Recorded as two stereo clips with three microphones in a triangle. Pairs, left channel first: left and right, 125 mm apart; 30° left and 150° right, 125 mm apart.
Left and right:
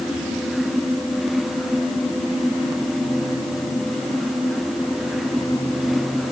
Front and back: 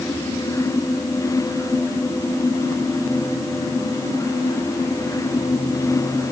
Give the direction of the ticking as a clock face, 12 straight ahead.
No ticking in this recording.